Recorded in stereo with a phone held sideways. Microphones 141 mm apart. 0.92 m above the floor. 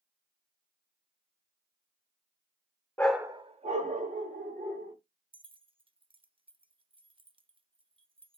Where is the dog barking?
15° left (ahead or behind), 0.6 m; by 5.0 s 75° right (ahead or behind), 2.5 m.